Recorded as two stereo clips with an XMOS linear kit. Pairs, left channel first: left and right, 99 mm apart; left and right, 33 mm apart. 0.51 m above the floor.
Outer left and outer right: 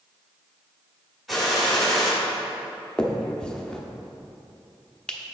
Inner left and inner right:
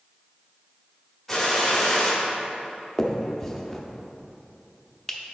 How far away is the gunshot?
About 1.6 m.